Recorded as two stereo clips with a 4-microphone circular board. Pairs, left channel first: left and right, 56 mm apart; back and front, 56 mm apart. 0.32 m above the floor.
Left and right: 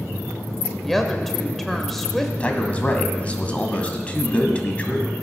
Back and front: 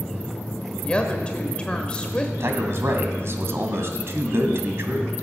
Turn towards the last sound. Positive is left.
turn(degrees=25)